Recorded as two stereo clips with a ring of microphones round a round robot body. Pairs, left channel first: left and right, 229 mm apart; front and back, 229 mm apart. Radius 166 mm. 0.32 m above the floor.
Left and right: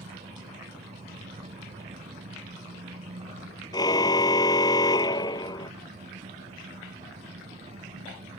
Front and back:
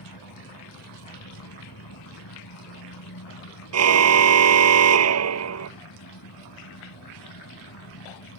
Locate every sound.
0.0 s an engine running: 25° right
3.7 s a car horn: 170° left